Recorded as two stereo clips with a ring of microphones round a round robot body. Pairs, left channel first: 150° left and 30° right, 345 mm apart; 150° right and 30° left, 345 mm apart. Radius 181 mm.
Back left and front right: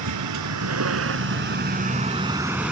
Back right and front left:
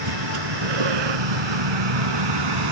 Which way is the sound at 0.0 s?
10° left.